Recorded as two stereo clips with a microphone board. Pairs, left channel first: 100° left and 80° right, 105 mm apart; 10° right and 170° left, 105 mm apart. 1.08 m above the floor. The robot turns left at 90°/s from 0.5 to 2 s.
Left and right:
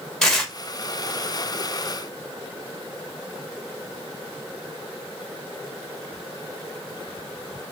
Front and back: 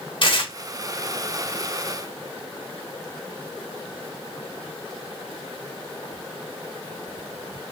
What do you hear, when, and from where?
0.2 s tearing paper: 15° left, 1.3 m; by 0.5 s 10° left, 1.3 m